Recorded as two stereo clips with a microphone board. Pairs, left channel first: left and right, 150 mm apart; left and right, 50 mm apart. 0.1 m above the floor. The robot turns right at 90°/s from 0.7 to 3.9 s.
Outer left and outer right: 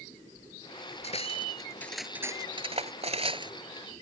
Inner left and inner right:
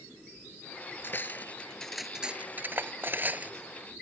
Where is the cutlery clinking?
45° left (ahead or behind); by 3.5 s 30° right (ahead or behind).